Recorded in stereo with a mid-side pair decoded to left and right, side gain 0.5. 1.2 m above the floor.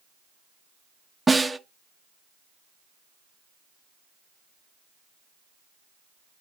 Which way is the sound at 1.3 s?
15° right.